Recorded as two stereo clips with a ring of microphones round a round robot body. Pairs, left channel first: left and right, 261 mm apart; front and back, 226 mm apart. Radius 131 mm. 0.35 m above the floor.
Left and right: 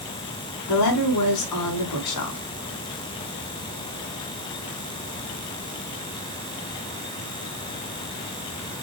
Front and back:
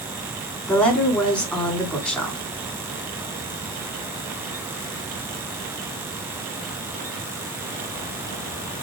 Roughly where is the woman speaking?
Left.